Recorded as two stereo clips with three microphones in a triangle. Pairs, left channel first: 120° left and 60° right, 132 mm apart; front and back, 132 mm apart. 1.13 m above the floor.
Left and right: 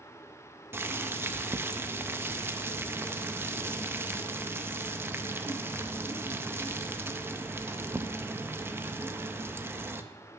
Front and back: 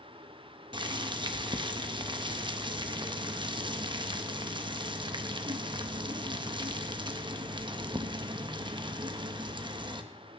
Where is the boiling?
135° right, 0.6 m.